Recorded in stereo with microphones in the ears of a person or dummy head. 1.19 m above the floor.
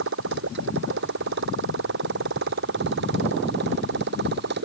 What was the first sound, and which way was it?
A motorcycle, 65° right (ahead or behind).